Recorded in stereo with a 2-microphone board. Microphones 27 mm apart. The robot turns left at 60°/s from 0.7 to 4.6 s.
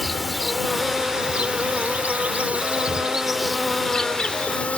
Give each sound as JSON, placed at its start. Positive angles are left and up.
{"t": 0.0, "sound": "an insect", "azimuth_deg": -10}